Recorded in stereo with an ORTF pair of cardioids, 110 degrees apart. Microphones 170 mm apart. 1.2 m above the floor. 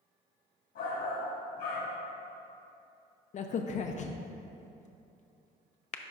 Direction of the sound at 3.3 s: 45° left.